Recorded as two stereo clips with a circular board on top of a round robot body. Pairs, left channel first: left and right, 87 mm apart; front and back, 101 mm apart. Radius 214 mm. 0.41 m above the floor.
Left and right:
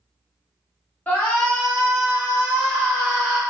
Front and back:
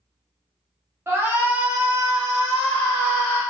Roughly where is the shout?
Behind left.